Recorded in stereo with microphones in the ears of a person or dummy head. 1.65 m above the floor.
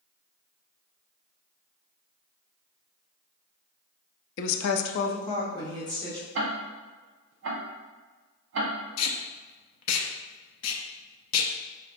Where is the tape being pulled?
75° left (ahead or behind), 0.6 m.